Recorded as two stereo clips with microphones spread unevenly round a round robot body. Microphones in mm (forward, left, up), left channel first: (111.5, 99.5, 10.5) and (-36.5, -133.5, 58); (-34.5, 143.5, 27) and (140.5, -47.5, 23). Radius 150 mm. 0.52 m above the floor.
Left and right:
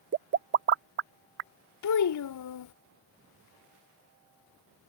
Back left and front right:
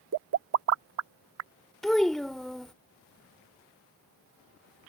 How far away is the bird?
I don't hear a bird.